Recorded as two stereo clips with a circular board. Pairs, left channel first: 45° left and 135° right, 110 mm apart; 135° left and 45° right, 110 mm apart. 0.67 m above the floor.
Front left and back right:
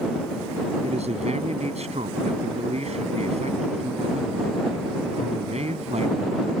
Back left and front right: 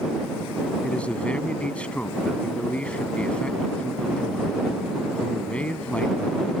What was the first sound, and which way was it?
A man speaking, 145° right.